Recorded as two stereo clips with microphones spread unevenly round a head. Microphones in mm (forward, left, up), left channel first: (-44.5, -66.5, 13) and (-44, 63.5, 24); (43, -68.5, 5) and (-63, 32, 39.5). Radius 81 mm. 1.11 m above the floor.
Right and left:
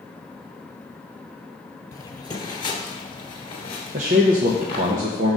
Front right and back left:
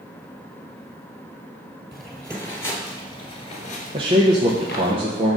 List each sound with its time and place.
1.9 s footsteps: 150° right, 1.4 m; by 4.9 s 40° right, 1.5 m
3.9 s a man speaking: 70° left, 0.8 m